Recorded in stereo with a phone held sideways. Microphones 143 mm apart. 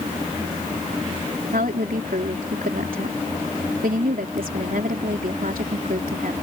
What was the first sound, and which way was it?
A woman speaking, 80° right.